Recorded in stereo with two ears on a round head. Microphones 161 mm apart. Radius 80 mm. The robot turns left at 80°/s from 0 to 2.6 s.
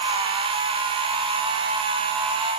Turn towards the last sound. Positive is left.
No sound to turn to.